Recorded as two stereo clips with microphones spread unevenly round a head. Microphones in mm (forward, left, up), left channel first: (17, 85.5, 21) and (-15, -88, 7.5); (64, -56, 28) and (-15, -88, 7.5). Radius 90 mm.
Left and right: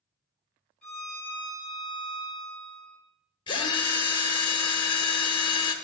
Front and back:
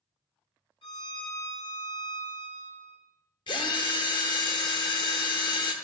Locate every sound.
0.8 s a violin: 5° right, 3.5 m
3.5 s a drill: 15° left, 0.9 m